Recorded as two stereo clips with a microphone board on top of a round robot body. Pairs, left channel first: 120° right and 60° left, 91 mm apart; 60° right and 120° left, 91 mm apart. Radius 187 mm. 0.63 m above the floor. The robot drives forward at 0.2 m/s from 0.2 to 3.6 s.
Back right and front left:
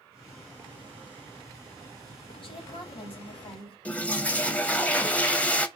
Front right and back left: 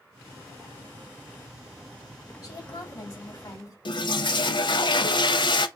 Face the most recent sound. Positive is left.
turn(degrees=-45)